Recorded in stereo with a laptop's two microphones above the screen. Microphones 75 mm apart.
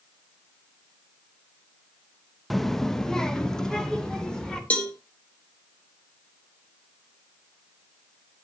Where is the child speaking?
Centre (ahead or behind), 0.6 m; by 4.6 s 10° left (ahead or behind), 3 m.